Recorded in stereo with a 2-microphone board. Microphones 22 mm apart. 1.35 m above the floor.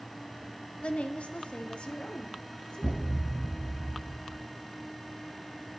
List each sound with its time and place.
0.8 s a woman speaking: 65° left (ahead or behind), 0.5 m; by 3.0 s 40° left (ahead or behind), 1.2 m
2.8 s a thud: 25° right (ahead or behind), 0.8 m